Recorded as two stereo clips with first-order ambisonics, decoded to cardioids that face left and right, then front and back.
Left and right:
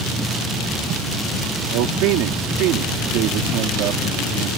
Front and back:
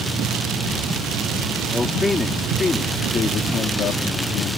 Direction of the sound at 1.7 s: 80° right.